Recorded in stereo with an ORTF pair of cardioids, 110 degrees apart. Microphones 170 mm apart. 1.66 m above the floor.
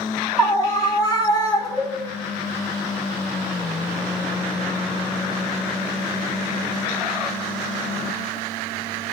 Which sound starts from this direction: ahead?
A scream, at 0.4 s.